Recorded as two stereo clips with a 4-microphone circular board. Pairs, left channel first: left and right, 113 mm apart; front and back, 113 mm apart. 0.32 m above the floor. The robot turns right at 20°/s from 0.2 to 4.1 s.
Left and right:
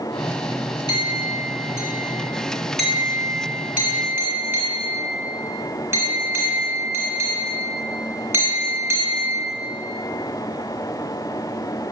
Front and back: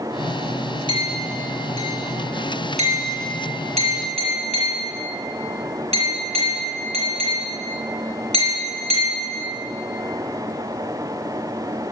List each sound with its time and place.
0.9 s a clink: 140° left, 2.5 m; by 9.3 s 160° right, 2.5 m